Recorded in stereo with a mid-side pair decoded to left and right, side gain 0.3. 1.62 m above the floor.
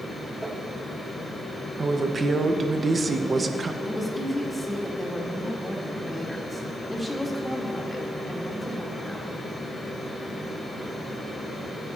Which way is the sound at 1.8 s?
50° right.